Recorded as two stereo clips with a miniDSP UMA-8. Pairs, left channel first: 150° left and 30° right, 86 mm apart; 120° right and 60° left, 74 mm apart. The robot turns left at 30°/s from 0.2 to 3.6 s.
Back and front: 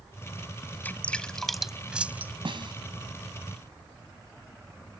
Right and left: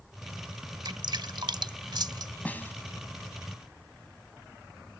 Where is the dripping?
80° left; by 2.3 s 35° left.